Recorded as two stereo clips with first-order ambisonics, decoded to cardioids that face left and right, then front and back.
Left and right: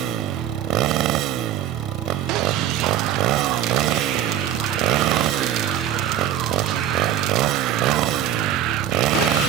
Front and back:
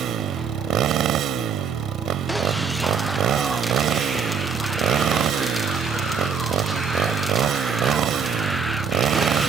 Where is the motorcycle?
125° right.